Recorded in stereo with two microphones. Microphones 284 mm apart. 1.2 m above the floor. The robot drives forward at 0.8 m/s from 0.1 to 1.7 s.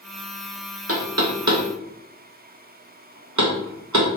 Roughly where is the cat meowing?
I don't hear a cat meowing.